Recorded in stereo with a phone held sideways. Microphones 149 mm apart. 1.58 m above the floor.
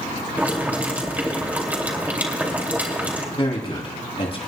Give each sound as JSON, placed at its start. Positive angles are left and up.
{"t": 0.4, "sound": "boiling", "side_deg": -10, "distance_m": 2.5}
{"t": 3.4, "sound": "a man speaking", "side_deg": 40, "distance_m": 3.0}